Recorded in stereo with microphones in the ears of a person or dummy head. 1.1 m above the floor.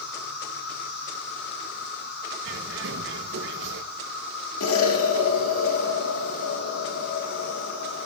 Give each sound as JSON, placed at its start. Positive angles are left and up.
{"t": 0.0, "sound": "an insect", "side_deg": 65, "distance_m": 8.0}
{"t": 2.4, "sound": "a bird", "side_deg": -60, "distance_m": 1.5}
{"t": 4.6, "sound": "an explosion", "side_deg": 80, "distance_m": 2.5}